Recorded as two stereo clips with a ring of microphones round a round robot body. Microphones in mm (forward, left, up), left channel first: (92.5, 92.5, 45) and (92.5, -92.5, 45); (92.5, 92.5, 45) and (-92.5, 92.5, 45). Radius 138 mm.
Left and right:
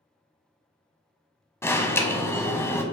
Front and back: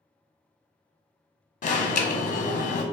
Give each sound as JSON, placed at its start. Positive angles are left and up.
{"t": 1.6, "sound": "an alarm", "azimuth_deg": 20, "distance_m": 0.9}